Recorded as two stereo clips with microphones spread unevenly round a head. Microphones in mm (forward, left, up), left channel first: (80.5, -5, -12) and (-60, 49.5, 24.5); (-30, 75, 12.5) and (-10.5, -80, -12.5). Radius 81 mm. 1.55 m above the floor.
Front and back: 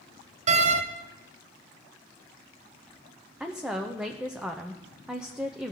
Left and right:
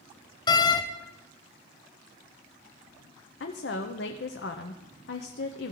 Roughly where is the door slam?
Behind left.